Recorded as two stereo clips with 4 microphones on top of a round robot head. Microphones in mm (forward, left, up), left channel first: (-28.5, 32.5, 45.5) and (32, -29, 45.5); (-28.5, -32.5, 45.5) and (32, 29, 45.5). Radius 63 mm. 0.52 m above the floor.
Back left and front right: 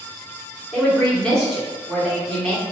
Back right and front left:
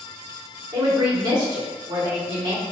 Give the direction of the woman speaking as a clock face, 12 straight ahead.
10 o'clock.